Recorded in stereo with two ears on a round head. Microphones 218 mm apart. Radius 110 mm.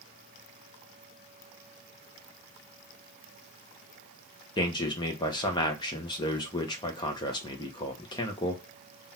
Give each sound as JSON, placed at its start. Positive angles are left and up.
{"t": 4.6, "sound": "a man speaking", "side_deg": 20, "distance_m": 0.7}